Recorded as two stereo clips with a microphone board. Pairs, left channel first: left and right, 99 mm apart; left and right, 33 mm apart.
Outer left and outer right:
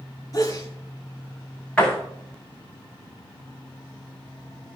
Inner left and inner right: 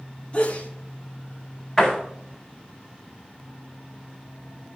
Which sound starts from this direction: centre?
A door slam, at 1.8 s.